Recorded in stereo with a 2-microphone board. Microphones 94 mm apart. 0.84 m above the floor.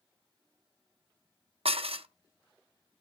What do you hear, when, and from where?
1.6 s dishes clattering: 85° right, 0.6 m